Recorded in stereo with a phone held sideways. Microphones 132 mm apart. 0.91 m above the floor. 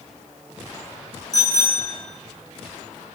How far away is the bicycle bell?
About 8 m.